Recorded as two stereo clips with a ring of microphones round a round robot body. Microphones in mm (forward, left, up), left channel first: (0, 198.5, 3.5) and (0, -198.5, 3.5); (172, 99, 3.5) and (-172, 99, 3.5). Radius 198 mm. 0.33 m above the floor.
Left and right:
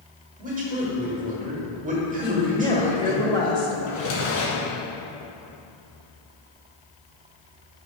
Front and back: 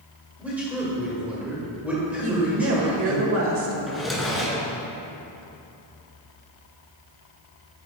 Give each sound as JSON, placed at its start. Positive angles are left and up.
{"t": 0.4, "sound": "a man speaking", "azimuth_deg": -100, "distance_m": 1.4}
{"t": 2.2, "sound": "a woman speaking", "azimuth_deg": 160, "distance_m": 1.0}
{"t": 3.9, "sound": "a drawer", "azimuth_deg": 90, "distance_m": 2.0}